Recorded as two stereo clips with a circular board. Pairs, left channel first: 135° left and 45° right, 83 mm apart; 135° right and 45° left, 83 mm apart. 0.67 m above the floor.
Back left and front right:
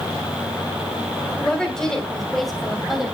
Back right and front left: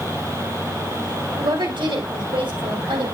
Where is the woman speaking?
55° left, 3.5 m; by 3.2 s 40° left, 3.5 m.